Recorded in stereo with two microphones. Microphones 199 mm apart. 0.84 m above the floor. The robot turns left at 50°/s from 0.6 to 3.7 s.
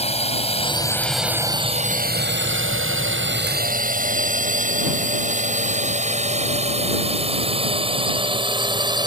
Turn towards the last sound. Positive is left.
turn(degrees=-20)  # may be behind; listen again after turning